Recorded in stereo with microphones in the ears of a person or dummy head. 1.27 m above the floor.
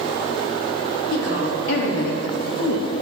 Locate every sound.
1.1 s a woman speaking: 60° left (ahead or behind), 3.5 m; by 3.0 s 70° left (ahead or behind), 2 m